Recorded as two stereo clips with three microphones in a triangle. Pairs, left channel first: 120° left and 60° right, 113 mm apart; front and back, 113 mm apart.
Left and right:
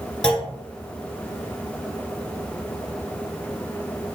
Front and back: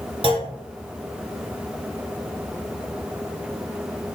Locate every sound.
0.2 s a clunk: 155° right, 1.2 m